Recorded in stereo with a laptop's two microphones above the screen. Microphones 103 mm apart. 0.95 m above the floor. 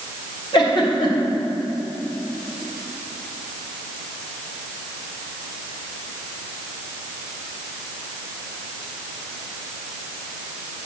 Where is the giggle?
50° left (ahead or behind), 1.4 m.